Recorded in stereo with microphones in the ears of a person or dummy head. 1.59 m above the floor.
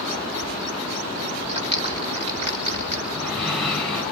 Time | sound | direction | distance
1.5 | a clap | 35° right (ahead or behind) | 4.5 m
3.1 | breathing | 5° left (ahead or behind) | 6.5 m